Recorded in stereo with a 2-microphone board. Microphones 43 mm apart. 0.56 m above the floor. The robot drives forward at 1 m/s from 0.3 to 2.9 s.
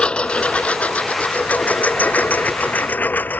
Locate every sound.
0.0 s a lawn mower: 25° left (ahead or behind); by 3.4 s 45° left (ahead or behind)